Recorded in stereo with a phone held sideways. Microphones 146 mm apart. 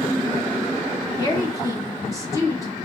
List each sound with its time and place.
1.2 s a woman speaking: 25° left (ahead or behind), 1.7 m